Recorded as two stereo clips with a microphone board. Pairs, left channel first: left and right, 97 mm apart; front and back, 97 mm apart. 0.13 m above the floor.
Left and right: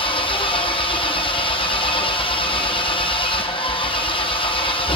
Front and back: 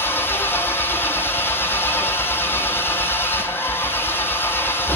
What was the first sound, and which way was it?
An engine running, 65° left.